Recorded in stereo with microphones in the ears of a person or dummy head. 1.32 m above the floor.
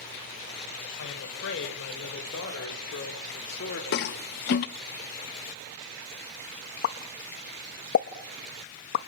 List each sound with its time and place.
1.0 s a woman speaking: 70° left (ahead or behind), 7 m; by 3.8 s 50° left (ahead or behind), 3.5 m
3.9 s a toilet flushing: 50° left (ahead or behind), 0.8 m
6.8 s a pop: 50° left (ahead or behind), 1.0 m